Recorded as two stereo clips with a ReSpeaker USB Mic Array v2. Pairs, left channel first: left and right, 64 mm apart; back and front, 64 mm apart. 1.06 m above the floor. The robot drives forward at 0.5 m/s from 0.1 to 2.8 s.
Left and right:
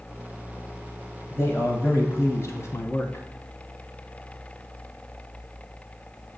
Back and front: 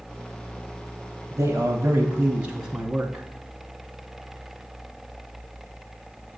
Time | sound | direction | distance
1.3 | a man speaking | 40° left | 1.1 m